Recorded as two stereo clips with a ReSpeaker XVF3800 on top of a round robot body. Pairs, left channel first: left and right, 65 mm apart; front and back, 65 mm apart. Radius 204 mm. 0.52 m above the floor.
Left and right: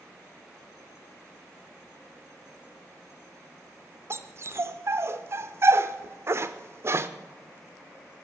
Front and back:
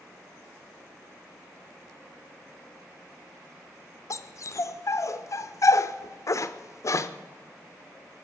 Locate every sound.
4.1 s a dog barking: 40° right, 0.6 m